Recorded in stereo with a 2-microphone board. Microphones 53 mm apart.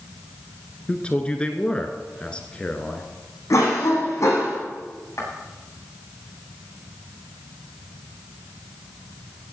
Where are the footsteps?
60° left (ahead or behind), 8.5 m.